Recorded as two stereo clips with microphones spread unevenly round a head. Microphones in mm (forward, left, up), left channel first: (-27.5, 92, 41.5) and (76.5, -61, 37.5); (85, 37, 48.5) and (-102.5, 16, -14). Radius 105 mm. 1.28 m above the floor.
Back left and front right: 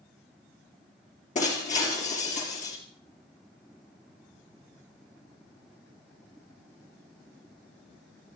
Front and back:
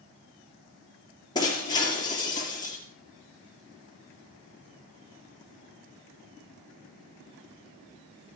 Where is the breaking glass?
70° left, 5 m.